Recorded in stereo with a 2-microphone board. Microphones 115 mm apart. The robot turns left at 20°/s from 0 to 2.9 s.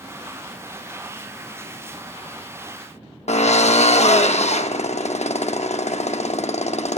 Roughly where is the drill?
Left.